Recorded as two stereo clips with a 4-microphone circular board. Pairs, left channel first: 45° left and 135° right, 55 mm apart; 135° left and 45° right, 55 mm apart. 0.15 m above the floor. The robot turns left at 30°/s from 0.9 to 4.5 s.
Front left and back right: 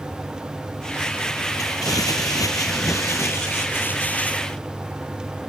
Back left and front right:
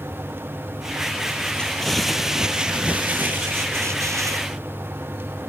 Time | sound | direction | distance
1.6 | crumpling | 60° left | 1.1 m